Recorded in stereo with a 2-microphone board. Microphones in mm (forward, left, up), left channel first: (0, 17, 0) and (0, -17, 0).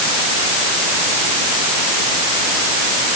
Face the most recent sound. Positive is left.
No sound to turn to.